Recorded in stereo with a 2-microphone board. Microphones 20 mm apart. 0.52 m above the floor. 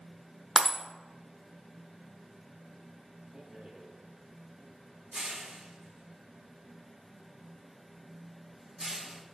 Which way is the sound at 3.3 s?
40° right (ahead or behind).